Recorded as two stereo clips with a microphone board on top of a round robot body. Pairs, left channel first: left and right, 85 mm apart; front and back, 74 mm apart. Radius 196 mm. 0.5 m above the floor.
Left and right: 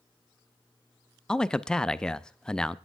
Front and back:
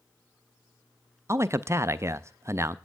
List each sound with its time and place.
1.3 s a man speaking: 165° left, 0.7 m